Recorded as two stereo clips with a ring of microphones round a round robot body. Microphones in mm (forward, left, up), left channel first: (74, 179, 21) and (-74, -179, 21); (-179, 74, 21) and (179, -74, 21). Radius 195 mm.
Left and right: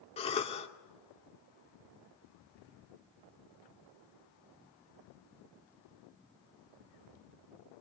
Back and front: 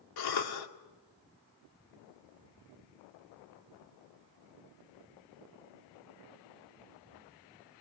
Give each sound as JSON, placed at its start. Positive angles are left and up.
{"t": 0.2, "sound": "a cough", "azimuth_deg": 140, "distance_m": 2.5}